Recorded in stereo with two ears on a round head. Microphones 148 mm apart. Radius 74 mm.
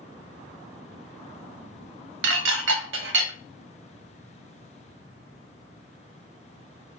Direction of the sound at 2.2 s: 80° right.